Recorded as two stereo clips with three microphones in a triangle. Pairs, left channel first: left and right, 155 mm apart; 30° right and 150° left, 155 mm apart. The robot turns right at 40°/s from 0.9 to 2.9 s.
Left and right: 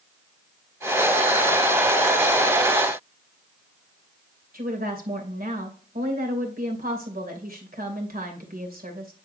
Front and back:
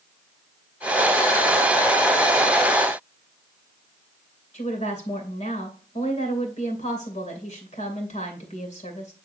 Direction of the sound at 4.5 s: 70° right.